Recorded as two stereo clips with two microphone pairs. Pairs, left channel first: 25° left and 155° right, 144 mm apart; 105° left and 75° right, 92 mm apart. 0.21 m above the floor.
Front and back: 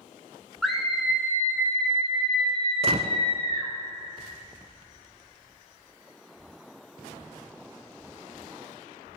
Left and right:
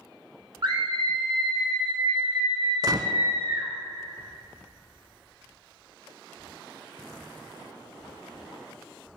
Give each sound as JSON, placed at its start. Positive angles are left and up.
{"t": 0.6, "sound": "a scream", "azimuth_deg": -60, "distance_m": 2.0}
{"t": 2.8, "sound": "a gunshot", "azimuth_deg": -115, "distance_m": 0.6}